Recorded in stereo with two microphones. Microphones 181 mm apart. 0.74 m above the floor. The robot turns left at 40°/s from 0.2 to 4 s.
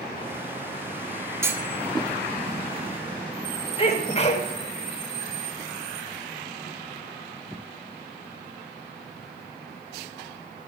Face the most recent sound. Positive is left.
turn(degrees=35)  # may be behind; listen again after turning